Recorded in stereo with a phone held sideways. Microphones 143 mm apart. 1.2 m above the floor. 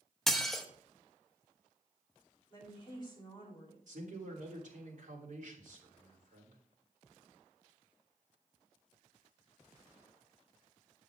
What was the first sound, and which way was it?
Dishes clattering, 5° left (ahead or behind).